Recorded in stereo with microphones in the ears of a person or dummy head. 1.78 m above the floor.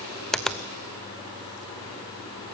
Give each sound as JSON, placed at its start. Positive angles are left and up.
{"t": 0.3, "sound": "a finger snap", "side_deg": 0, "distance_m": 0.6}